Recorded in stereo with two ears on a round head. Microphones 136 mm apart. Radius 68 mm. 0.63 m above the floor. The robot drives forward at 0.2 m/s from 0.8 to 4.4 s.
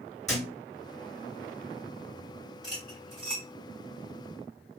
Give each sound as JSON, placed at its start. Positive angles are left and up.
{"t": 0.3, "sound": "a thud", "side_deg": 0, "distance_m": 1.5}
{"t": 2.6, "sound": "cutlery clinking", "side_deg": 0, "distance_m": 1.9}